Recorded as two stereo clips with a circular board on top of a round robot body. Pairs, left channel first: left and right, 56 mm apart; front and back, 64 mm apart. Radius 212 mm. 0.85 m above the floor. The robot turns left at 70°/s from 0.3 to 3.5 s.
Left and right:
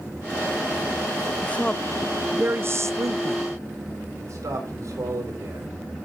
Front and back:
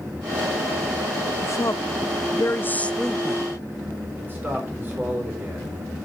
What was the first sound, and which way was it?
A woman speaking, 35° left.